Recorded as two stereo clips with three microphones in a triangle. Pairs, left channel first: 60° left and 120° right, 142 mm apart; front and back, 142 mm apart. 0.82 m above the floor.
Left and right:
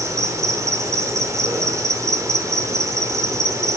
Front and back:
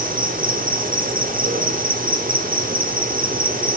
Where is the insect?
170° left, 1.3 m.